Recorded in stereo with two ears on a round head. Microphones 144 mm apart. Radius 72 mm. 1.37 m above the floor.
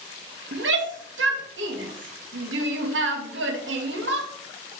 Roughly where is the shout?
Right.